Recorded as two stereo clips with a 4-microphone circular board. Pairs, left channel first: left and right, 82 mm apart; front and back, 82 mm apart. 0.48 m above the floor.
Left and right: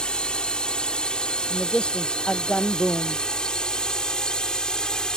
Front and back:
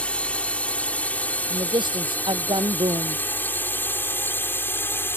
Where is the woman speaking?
170° left.